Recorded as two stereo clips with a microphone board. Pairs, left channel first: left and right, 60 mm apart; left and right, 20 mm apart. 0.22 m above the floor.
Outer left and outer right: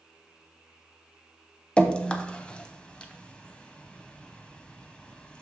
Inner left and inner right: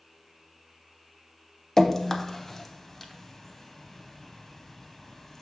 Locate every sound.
1.8 s dripping: 20° left (ahead or behind), 0.6 m